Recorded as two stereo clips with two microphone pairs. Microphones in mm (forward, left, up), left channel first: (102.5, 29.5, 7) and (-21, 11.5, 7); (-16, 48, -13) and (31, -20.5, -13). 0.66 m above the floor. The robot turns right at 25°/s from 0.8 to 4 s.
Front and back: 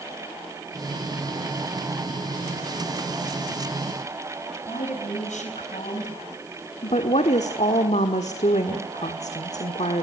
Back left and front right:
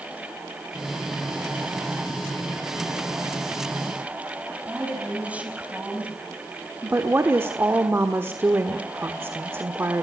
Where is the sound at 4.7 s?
20° left, 4.5 m.